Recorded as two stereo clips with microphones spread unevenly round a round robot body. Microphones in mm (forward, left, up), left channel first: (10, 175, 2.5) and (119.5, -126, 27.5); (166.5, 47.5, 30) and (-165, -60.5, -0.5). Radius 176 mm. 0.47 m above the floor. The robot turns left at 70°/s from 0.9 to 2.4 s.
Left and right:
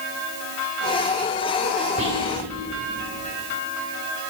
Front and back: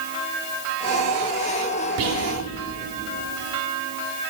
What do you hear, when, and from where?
2.0 s whispering: 140° right, 1.9 m; by 2.3 s 160° right, 1.9 m